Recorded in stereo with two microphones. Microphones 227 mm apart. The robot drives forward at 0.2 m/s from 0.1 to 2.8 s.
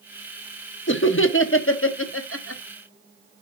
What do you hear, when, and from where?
0.9 s laughter: 65° left (ahead or behind), 1.0 m; by 2.6 s 80° left, 0.9 m